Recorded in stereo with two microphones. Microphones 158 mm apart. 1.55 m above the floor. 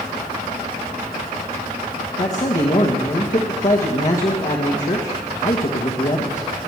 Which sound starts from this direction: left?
A man speaking, at 2.2 s.